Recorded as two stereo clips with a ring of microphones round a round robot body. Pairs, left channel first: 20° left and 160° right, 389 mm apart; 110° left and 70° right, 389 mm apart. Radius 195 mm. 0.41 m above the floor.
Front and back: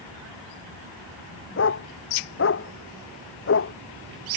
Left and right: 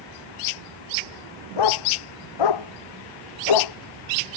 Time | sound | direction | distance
1.6 | a dog barking | 80° left | ?